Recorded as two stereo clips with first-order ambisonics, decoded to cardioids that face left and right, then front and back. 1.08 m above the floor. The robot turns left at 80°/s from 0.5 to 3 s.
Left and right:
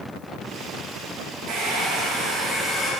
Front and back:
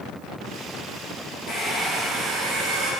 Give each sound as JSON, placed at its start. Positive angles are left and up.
{"t": 1.5, "sound": "a hair dryer", "azimuth_deg": -65, "distance_m": 0.7}